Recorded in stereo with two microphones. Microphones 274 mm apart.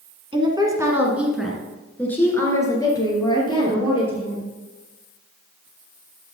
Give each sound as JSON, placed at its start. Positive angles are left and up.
{"t": 0.3, "sound": "a woman speaking", "side_deg": -20, "distance_m": 1.8}